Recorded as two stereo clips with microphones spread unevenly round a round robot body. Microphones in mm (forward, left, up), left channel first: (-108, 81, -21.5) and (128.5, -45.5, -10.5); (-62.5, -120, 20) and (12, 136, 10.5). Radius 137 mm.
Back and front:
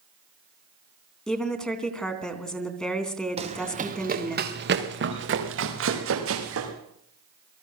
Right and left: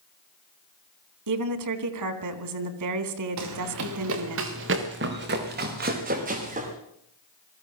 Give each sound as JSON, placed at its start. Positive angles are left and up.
{"t": 1.3, "sound": "a woman speaking", "azimuth_deg": 65, "distance_m": 3.0}
{"t": 3.4, "sound": "running footsteps", "azimuth_deg": 40, "distance_m": 3.5}